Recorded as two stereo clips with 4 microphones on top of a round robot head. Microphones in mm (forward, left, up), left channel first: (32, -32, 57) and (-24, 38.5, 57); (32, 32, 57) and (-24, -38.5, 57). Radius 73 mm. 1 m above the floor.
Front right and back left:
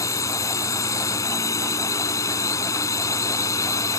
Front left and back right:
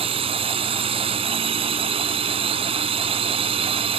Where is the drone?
110° right.